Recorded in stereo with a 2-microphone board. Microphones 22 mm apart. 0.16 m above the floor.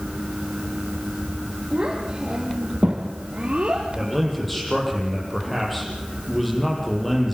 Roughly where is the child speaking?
Right.